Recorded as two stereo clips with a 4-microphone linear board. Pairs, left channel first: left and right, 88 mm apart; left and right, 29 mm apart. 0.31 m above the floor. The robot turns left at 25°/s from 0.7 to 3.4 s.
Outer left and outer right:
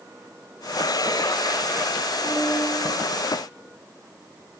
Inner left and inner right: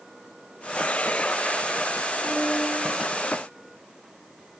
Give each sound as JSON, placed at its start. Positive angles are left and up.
{"t": 2.3, "sound": "a piano", "side_deg": 0, "distance_m": 8.0}